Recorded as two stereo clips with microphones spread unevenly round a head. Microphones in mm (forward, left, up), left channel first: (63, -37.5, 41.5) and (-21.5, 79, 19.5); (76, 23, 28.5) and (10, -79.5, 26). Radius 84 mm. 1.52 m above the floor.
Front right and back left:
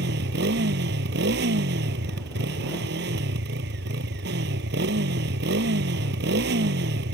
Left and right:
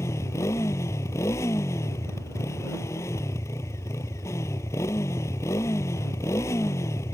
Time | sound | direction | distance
0.0 | a motorcycle | 130° left | ?